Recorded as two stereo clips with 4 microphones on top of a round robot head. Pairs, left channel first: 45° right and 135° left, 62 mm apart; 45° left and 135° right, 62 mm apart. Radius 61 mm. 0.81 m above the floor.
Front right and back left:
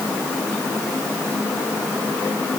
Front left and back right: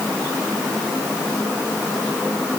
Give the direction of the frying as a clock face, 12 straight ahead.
No frying in this recording.